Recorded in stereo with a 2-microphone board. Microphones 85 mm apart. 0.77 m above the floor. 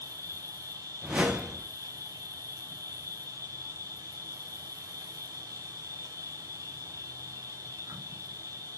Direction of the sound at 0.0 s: 45° right (ahead or behind).